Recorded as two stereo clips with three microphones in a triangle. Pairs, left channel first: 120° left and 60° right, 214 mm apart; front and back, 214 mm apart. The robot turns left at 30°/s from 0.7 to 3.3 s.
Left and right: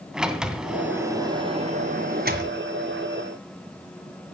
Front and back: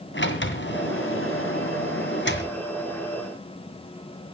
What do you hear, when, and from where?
0.1 s a sliding door: 25° left, 2.0 m; by 2.5 s 30° right, 2.0 m